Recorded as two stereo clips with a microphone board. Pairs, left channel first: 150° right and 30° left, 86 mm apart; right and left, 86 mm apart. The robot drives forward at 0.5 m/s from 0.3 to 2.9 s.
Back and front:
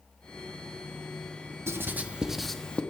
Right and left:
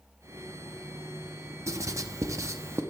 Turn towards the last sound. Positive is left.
turn(degrees=140)